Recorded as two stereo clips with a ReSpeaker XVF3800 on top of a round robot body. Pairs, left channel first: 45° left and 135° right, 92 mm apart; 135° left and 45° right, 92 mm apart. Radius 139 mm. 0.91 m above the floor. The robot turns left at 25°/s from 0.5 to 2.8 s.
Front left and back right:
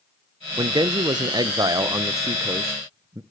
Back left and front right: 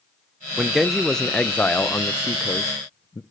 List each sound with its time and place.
0.6 s a man speaking: 130° right, 0.8 m; by 3.2 s 175° left, 0.8 m